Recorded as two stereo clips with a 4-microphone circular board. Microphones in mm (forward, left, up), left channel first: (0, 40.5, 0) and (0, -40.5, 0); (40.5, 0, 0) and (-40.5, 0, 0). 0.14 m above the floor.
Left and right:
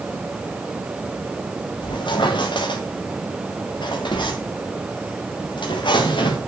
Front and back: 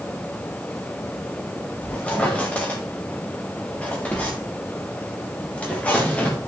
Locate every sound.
1.8 s a squeak: 75° left, 4.5 m